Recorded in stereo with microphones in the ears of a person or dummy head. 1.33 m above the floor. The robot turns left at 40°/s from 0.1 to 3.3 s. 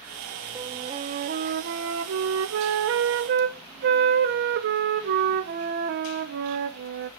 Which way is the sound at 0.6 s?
15° right.